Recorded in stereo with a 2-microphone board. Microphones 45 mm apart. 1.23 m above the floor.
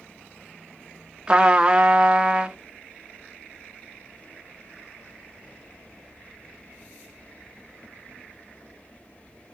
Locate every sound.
1.3 s a trumpet: 20° right (ahead or behind), 0.8 m